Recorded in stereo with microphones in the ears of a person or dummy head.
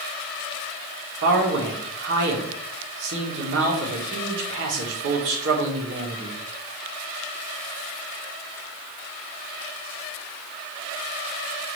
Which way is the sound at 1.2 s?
70° right (ahead or behind).